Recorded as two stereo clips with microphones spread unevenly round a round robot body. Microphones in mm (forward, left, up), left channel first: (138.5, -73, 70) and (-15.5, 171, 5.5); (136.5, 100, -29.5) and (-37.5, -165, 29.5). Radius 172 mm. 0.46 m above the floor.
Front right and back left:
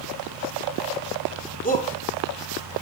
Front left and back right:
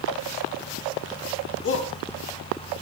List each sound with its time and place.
1.6 s a shout: 5° left, 6 m